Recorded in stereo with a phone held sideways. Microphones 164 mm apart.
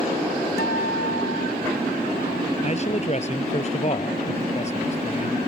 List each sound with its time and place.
0.6 s a guitar: 80° left
2.6 s a man speaking: 40° left (ahead or behind)